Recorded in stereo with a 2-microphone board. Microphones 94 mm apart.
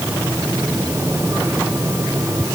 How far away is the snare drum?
No snare drum in this recording.